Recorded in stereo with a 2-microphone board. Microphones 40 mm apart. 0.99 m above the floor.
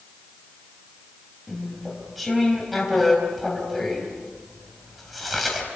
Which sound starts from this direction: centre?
Chewing, at 1.5 s.